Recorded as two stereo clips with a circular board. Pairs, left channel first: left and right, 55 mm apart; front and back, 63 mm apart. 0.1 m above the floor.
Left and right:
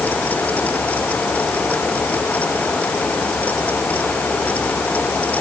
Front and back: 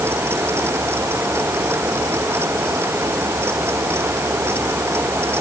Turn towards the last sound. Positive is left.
No sound to turn to.